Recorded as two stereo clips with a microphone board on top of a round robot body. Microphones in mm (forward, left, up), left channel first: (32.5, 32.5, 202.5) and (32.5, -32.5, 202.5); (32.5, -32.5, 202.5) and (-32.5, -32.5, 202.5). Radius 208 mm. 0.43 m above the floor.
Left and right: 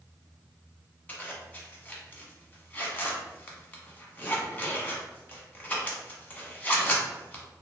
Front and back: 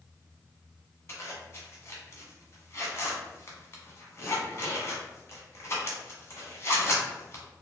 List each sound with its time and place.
1.1 s a zipper: 30° left, 1.3 m